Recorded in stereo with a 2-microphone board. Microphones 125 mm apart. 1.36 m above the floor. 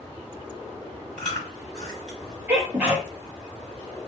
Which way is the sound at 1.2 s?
5° left (ahead or behind).